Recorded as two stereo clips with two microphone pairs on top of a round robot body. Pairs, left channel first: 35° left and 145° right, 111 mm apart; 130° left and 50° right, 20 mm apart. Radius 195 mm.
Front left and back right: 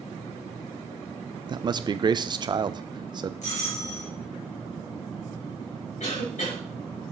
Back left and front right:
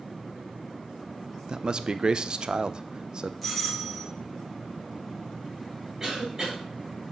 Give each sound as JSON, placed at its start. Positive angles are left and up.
{"t": 1.5, "sound": "a man speaking", "azimuth_deg": -100, "distance_m": 0.7}
{"t": 3.4, "sound": "a doorbell", "azimuth_deg": 40, "distance_m": 3.5}
{"t": 6.0, "sound": "a cough", "azimuth_deg": 25, "distance_m": 4.0}